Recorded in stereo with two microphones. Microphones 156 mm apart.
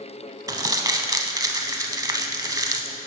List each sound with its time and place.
0.5 s crumpling: 25° right (ahead or behind), 0.7 m